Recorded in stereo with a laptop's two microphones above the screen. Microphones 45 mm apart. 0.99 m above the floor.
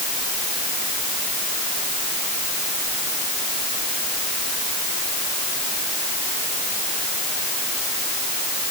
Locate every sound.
Only background noise.